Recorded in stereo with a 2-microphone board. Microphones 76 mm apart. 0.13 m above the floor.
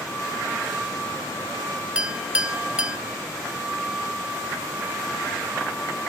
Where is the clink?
15° right (ahead or behind), 1.0 m.